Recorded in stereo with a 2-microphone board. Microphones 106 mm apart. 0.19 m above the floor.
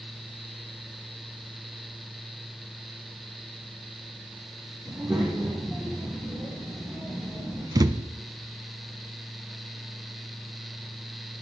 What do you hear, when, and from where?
4.8 s a child speaking: 5° right (ahead or behind), 6.5 m; by 7.7 s 20° right (ahead or behind), 8.5 m
7.8 s a thud: 35° right (ahead or behind), 0.6 m